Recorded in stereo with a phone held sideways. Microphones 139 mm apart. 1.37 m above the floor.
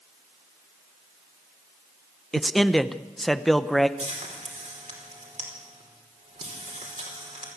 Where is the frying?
60° right (ahead or behind), 5 m.